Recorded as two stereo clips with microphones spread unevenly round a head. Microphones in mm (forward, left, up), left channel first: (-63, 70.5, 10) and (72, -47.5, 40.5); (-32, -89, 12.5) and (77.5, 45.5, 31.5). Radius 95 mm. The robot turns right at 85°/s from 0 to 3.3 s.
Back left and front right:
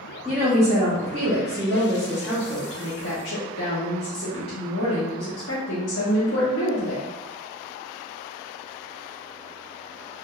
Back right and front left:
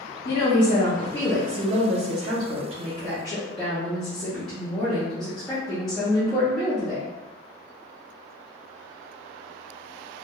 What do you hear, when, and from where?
0.2 s a woman speaking: 125° right, 0.6 m; by 7.0 s 135° left, 0.6 m